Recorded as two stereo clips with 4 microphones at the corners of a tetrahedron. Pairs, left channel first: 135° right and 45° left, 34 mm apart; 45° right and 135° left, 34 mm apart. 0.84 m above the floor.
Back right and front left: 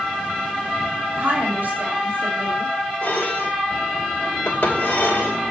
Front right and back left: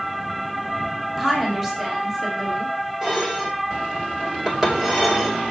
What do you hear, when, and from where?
1.2 s a woman speaking: 65° left, 3 m
3.0 s dishes clattering: 145° right, 2.5 m